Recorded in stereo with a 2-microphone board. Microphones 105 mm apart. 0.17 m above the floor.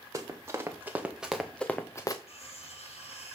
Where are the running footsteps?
30° right (ahead or behind), 2.0 m; by 2.2 s 40° left (ahead or behind), 1.0 m.